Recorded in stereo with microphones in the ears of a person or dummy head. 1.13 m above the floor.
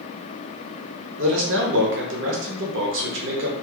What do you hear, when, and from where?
1.2 s a man speaking: 55° right (ahead or behind), 0.9 m